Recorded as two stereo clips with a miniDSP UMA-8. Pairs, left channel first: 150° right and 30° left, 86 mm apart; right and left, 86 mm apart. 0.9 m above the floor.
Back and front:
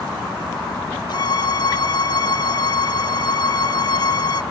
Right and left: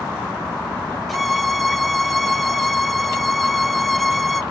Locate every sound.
1.1 s a violin: straight behind, 0.9 m